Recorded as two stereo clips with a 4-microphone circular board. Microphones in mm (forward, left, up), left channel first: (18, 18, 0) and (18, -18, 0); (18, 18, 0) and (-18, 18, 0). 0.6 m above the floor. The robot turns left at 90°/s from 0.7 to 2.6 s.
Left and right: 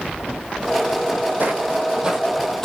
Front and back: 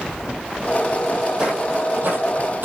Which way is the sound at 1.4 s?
115° right.